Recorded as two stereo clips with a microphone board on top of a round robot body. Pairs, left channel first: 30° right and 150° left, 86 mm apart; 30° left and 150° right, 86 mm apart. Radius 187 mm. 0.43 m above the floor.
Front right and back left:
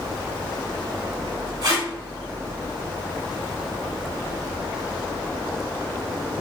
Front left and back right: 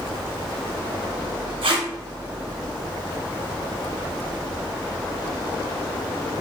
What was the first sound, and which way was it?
Tape being pulled, 160° right.